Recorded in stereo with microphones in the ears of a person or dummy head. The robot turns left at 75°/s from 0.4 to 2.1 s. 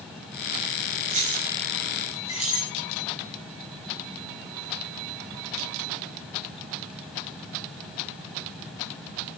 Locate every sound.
1.1 s keys jangling: 45° right (ahead or behind), 6.5 m; by 2.7 s 30° left (ahead or behind), 6.5 m